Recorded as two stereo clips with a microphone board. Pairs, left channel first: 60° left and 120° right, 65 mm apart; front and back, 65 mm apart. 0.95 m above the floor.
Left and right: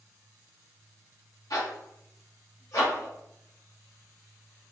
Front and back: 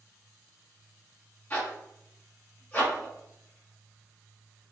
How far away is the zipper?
About 1.1 m.